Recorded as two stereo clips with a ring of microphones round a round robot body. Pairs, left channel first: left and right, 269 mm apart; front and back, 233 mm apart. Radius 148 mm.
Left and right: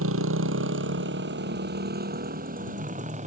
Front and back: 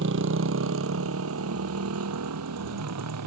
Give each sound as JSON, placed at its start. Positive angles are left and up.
{"t": 0.0, "sound": "a motorcycle", "azimuth_deg": -130}